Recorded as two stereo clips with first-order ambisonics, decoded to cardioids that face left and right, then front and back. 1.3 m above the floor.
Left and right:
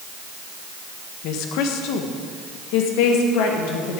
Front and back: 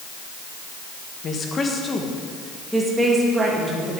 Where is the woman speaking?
65° left, 1.3 m; by 4.0 s 110° left, 2.5 m.